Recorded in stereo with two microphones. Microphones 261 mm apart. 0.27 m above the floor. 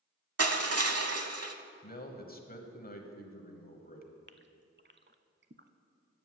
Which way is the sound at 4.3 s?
45° right (ahead or behind).